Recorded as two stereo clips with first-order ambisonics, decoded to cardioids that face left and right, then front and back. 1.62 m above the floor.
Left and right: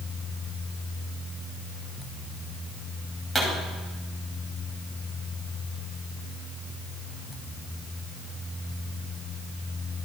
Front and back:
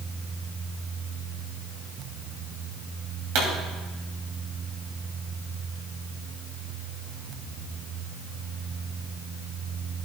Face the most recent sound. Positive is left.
turn(degrees=170)